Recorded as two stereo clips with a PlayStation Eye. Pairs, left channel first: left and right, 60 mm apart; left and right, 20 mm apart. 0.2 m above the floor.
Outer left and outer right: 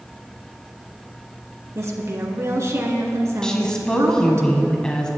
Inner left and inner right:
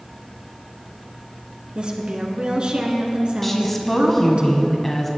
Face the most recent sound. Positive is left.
turn(degrees=10)  # may be behind; listen again after turning